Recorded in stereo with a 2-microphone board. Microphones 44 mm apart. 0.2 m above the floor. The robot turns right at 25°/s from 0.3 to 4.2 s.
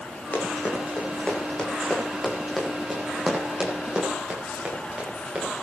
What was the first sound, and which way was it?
Running footsteps, 40° left (ahead or behind).